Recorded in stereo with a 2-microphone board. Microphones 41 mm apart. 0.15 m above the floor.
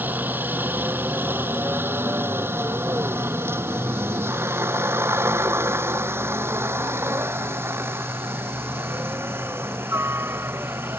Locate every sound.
0.0 s a helicopter: 50° right (ahead or behind); by 11.0 s 65° right (ahead or behind)